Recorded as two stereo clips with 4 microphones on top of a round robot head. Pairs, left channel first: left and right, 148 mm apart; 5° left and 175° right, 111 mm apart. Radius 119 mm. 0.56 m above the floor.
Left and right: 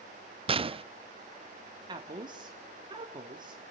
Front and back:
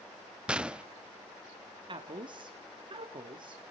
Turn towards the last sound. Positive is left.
turn(degrees=-145)